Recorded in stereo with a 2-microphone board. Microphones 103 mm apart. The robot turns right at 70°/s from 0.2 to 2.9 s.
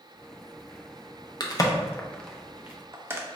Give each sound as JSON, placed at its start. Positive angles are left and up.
{"t": 1.4, "sound": "a crack", "side_deg": 40, "distance_m": 0.6}